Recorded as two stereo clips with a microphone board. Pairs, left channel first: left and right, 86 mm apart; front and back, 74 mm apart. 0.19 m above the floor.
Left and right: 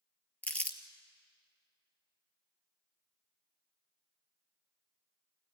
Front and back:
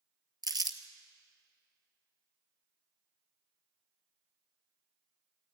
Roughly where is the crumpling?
Behind.